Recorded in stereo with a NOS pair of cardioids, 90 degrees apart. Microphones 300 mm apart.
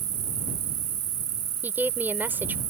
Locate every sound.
0.0 s an insect: 60° right
1.6 s a woman speaking: 5° right